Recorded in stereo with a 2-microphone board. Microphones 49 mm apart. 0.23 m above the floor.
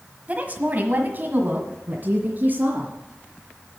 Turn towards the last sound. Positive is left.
turn(degrees=-45)  # may be behind; listen again after turning